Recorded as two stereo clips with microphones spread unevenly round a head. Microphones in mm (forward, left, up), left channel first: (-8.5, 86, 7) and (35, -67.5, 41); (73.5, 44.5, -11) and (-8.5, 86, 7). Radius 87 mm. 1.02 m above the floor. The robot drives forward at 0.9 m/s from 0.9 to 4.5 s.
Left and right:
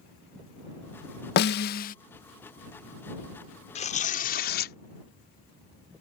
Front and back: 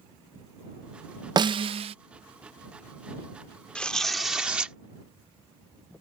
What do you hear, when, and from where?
1.4 s a snare drum: 105° left; by 1.9 s 145° left
3.8 s tearing paper: 55° left; by 4.8 s 75° left